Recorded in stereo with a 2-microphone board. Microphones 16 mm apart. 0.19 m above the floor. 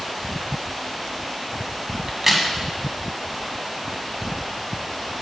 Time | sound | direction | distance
2.1 | a crack | 20° right (ahead or behind) | 1.5 m